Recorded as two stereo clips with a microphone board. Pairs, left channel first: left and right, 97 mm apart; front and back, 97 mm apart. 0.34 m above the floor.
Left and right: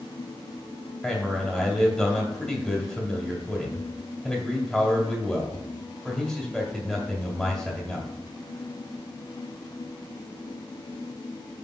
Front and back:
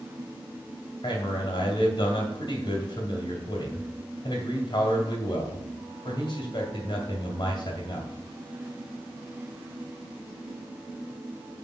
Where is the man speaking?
5° left, 2 m.